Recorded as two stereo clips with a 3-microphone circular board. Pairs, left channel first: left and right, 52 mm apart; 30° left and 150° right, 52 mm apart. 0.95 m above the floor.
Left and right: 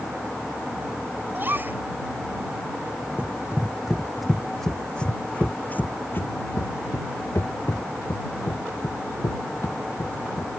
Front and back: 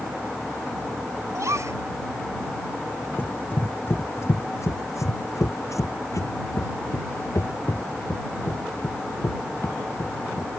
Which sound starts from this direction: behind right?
A gasp, at 1.3 s.